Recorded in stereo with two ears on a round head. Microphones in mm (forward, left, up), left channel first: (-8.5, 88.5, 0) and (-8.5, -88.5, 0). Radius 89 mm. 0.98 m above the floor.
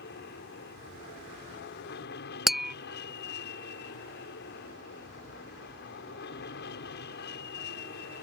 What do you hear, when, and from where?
0.0 s an aircraft: 60° left (ahead or behind)
2.5 s tapping: centre (ahead or behind)